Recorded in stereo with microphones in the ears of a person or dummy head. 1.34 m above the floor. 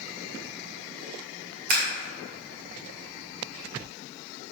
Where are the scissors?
45° right (ahead or behind), 2 m.